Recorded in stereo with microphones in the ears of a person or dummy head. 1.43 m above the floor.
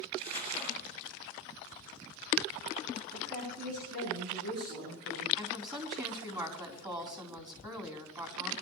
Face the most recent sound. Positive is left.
turn(degrees=-25)  # may be behind; listen again after turning